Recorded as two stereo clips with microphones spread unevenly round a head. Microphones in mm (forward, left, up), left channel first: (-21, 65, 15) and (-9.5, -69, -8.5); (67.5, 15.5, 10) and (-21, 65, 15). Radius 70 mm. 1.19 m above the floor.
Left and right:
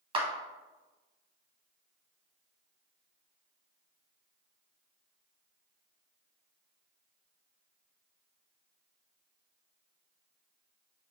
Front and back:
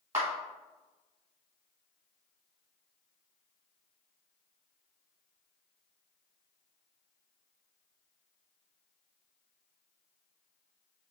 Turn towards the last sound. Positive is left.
turn(degrees=-140)